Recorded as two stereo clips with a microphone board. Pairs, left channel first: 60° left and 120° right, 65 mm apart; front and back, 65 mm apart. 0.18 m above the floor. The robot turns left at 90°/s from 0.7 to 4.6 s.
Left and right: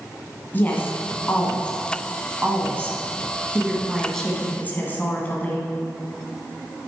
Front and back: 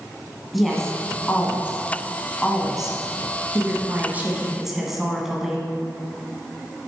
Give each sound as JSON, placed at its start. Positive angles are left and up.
{"t": 0.5, "sound": "a woman speaking", "azimuth_deg": 90, "distance_m": 1.6}